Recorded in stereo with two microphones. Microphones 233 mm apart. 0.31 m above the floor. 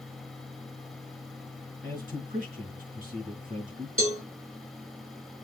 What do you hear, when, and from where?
1.8 s a man speaking: 35° right (ahead or behind), 4.5 m
4.0 s a cowbell: 65° right (ahead or behind), 3.5 m